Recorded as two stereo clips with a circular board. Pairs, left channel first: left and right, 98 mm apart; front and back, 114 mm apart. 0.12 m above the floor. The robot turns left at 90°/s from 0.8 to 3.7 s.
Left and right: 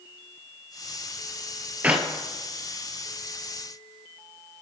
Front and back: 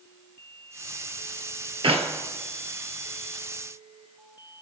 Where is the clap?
160° right, 2.0 m; by 2.1 s straight behind, 2.0 m.